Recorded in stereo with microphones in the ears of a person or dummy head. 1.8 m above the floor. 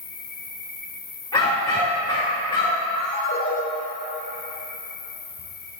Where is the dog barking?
25° left (ahead or behind), 1.8 m.